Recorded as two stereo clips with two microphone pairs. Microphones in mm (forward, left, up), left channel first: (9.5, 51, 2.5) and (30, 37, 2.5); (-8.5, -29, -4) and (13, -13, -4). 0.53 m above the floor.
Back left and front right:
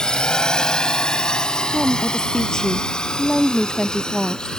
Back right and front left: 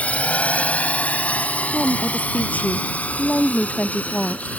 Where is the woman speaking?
150° right.